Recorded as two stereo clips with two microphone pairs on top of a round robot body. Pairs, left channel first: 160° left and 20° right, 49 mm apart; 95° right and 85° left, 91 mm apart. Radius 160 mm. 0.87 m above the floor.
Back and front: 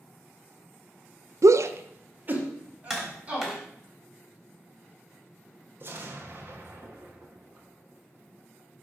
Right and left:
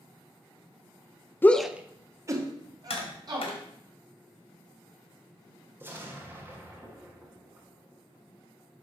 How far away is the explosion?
About 1.4 m.